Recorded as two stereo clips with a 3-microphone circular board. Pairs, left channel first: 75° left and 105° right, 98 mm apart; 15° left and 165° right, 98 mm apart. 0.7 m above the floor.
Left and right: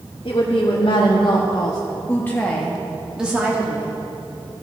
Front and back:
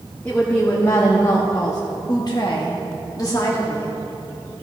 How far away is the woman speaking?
About 1.3 m.